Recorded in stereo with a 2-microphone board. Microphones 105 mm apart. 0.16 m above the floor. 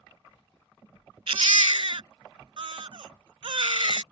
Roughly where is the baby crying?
Right.